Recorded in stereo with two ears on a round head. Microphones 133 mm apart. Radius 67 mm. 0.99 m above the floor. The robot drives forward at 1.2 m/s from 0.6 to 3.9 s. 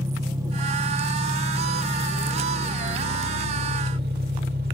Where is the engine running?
25° right (ahead or behind), 4 m; by 4.7 s 75° right (ahead or behind), 1.9 m.